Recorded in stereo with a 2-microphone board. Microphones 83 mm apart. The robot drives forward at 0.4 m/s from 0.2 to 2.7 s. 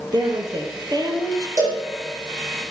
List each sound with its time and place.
0.1 s a woman speaking: 50° right (ahead or behind), 2 m; by 1.5 s 45° right (ahead or behind), 2.5 m
1.6 s a cowbell: 45° right (ahead or behind), 4.5 m